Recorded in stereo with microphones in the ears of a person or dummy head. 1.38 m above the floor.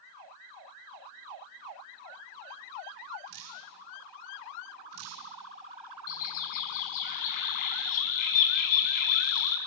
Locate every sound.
3.3 s dripping: 80° right, 5 m
6.1 s a bird: 50° left (ahead or behind), 5 m